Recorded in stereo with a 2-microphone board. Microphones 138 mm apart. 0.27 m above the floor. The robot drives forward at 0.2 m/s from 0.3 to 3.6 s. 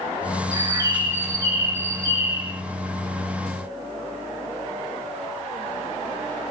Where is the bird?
20° right (ahead or behind), 1.1 m.